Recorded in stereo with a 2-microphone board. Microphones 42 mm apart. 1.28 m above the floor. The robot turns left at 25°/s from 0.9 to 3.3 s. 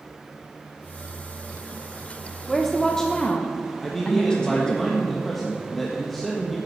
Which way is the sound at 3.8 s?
5° left (ahead or behind).